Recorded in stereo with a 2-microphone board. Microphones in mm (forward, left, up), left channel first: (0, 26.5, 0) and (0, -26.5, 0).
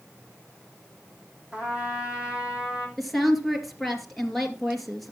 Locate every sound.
1.5 s a trumpet: 20° right (ahead or behind), 3 m
3.0 s a woman speaking: centre (ahead or behind), 2.5 m